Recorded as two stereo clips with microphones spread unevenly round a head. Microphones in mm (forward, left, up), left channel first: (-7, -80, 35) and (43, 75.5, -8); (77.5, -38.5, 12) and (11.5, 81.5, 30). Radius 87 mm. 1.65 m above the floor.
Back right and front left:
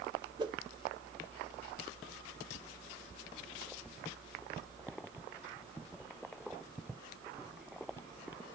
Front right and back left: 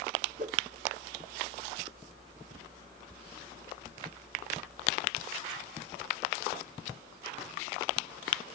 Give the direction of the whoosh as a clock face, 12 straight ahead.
7 o'clock.